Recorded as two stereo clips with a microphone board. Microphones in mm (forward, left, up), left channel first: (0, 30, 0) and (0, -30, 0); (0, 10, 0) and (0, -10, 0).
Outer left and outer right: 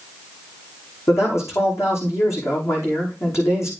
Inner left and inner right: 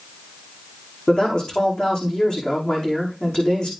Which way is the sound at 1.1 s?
55° left (ahead or behind).